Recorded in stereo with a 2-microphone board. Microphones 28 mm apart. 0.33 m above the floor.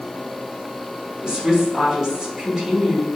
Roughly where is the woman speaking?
Centre.